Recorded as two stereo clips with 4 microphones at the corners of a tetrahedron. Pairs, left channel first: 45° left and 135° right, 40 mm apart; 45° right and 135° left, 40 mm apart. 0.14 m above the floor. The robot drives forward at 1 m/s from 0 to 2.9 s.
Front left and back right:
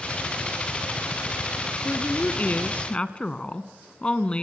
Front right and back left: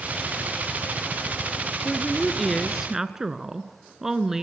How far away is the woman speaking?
About 1.8 m.